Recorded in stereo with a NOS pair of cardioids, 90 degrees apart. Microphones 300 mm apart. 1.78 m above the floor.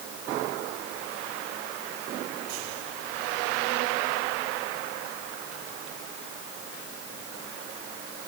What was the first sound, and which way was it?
Only background noise.